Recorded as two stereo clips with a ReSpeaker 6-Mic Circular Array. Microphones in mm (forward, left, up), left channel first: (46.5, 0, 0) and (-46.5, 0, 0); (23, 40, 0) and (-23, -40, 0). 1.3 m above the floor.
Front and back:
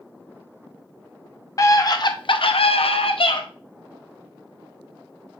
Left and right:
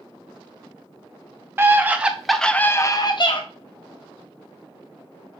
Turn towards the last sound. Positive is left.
turn(degrees=35)